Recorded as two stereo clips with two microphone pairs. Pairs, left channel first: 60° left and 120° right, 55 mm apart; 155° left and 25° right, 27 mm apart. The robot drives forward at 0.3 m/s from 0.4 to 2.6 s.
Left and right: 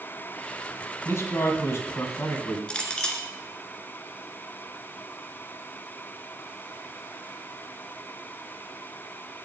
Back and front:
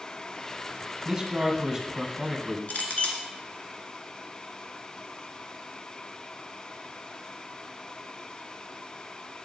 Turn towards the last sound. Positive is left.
turn(degrees=130)